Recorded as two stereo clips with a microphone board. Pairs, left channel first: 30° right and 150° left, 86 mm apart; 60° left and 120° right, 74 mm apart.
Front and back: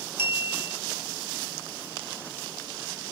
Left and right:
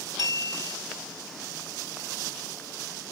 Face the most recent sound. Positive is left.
turn(degrees=-150)